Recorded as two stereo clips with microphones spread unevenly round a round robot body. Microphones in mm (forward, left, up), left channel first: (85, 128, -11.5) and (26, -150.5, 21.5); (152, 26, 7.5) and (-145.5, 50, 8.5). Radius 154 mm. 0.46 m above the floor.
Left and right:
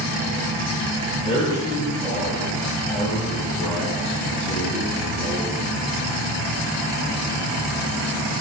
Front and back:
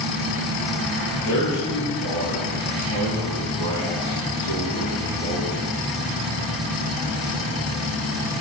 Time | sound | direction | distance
1.2 | a man speaking | 10° left | 1.8 m